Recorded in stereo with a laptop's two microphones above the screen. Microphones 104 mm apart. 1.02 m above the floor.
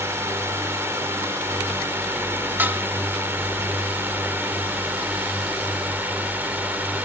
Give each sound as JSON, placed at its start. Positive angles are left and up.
{"t": 0.0, "sound": "a drone", "side_deg": -25}
{"t": 2.6, "sound": "dishes clattering", "side_deg": -20}